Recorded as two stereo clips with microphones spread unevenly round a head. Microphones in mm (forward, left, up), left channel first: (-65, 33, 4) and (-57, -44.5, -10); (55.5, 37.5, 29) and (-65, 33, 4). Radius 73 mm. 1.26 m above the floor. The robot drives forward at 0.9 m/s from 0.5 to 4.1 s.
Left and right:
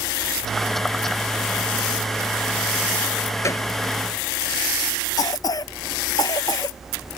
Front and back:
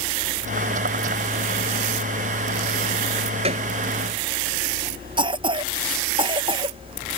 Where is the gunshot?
145° left.